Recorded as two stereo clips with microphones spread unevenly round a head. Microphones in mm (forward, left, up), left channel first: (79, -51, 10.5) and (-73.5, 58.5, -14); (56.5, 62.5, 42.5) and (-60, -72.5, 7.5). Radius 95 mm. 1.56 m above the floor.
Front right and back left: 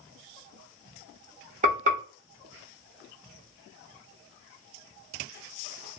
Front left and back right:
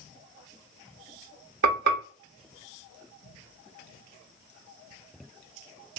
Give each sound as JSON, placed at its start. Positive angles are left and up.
{"t": 1.6, "sound": "frying", "azimuth_deg": -160, "distance_m": 1.3}